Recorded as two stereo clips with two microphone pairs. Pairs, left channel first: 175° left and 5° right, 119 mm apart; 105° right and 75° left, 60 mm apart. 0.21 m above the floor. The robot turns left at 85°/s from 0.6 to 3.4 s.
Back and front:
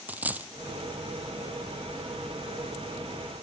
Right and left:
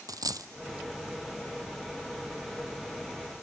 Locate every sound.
0.1 s a dropped coin: 70° left, 0.7 m